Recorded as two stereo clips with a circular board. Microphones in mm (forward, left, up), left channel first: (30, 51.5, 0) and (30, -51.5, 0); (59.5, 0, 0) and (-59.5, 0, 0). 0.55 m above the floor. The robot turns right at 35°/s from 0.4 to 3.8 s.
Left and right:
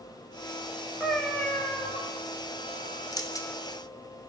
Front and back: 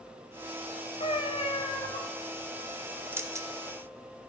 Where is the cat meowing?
5° left, 1.1 m; by 2.0 s 40° left, 1.1 m.